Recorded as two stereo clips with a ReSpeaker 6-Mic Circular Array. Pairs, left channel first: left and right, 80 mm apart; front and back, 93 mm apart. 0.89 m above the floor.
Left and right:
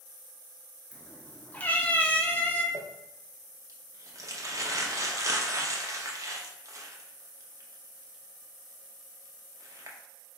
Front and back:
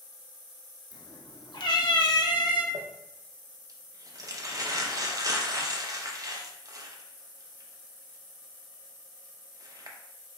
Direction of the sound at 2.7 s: 135° right.